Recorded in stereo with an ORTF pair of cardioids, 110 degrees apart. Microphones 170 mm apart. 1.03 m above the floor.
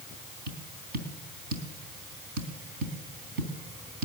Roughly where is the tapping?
Right.